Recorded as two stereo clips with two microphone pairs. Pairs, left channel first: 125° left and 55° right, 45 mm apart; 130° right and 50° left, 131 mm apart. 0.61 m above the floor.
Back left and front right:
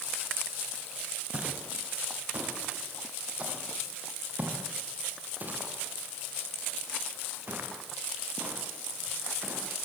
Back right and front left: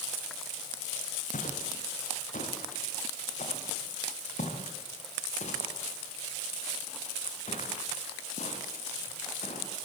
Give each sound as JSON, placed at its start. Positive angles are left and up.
{"t": 1.3, "sound": "footsteps", "azimuth_deg": -120, "distance_m": 7.5}